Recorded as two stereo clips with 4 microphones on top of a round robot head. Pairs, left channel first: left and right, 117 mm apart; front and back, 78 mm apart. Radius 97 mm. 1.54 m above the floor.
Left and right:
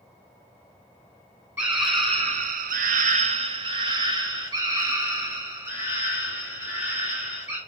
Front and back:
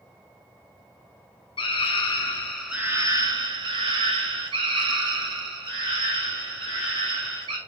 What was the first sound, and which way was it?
A scream, 30° right.